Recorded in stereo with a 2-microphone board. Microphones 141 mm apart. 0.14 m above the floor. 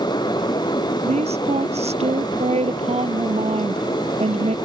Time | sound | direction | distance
1.0 | a woman speaking | 50° right (ahead or behind) | ?